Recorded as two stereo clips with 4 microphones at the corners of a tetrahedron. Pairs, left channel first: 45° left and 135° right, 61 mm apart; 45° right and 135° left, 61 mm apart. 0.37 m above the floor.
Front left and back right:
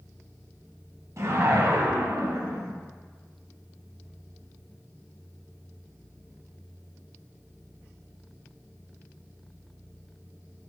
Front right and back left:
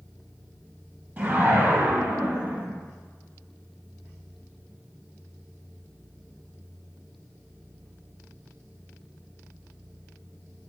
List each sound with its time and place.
1.2 s a whoosh: 165° right, 0.9 m